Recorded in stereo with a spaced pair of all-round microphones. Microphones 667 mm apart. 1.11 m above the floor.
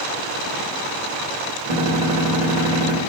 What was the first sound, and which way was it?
A gunshot, 55° right (ahead or behind).